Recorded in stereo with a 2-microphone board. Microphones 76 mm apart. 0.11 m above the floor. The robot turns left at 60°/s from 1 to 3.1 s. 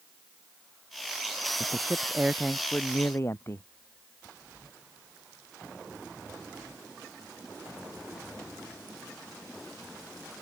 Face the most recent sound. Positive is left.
turn(degrees=145)